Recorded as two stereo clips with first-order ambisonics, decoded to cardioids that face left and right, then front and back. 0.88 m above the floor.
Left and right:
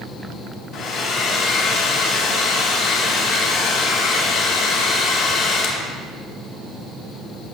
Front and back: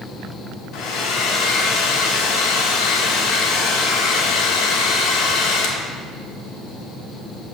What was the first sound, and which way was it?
A hair dryer, 40° left.